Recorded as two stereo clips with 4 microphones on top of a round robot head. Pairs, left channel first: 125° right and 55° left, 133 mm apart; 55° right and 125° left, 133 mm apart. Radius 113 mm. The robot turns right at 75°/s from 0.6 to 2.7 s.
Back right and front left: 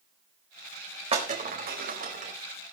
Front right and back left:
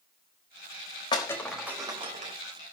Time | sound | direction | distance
1.1 | breaking glass | 5° left | 4.5 m